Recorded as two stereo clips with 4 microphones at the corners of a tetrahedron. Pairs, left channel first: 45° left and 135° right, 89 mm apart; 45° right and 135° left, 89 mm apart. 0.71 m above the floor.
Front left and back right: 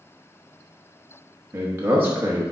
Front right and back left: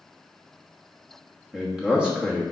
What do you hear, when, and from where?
1.5 s a man speaking: 160° right, 1.0 m